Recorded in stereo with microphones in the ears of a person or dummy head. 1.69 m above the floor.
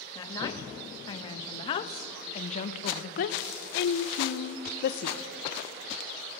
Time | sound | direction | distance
0.1 | a woman speaking | 20° left (ahead or behind) | 2.5 m